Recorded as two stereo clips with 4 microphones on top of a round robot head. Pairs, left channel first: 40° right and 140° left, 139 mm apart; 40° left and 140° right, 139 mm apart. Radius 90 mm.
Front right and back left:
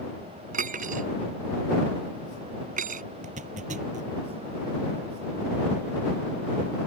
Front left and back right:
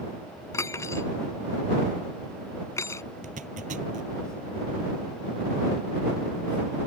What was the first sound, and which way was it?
Cutlery clinking, 110° left.